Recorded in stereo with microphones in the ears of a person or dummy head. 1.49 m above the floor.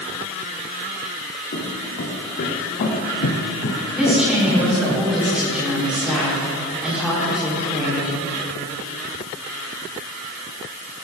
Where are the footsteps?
50° left (ahead or behind), 4 m; by 5.0 s 5° right (ahead or behind), 2.5 m.